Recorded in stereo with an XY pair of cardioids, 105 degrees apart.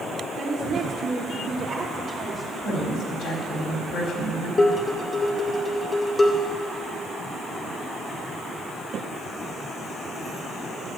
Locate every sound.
0.4 s a woman speaking: 60° right, 3 m; by 2.5 s 15° right, 3 m
2.6 s a woman speaking: 65° left, 4 m
4.6 s dishes clattering: 35° left, 2 m